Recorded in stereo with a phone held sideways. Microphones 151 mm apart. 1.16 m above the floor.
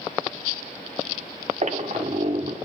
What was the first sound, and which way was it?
A squeak, 50° right (ahead or behind).